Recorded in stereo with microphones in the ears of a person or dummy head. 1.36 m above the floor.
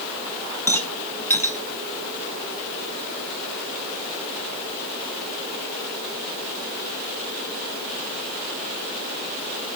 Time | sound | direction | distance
0.7 | a rattle | 10° left (ahead or behind) | 1.0 m